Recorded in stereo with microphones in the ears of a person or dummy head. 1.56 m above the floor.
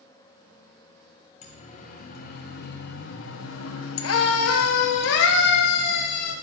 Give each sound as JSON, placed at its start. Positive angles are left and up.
{"t": 1.4, "sound": "a siren", "side_deg": 40, "distance_m": 2.5}